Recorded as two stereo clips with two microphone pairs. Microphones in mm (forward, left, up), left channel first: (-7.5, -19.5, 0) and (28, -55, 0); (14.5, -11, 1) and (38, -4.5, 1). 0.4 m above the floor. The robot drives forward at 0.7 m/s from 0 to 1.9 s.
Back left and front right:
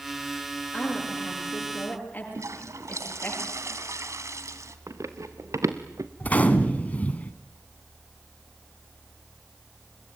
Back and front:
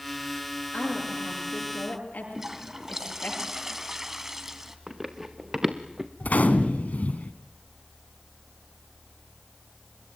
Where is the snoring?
No snoring in this recording.